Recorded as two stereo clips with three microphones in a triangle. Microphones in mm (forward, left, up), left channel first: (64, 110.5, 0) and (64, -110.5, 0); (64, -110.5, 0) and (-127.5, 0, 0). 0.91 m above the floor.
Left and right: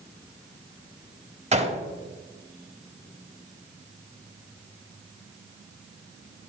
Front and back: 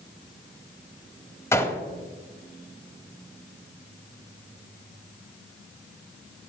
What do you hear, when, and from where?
1.5 s a gunshot: 100° right, 0.8 m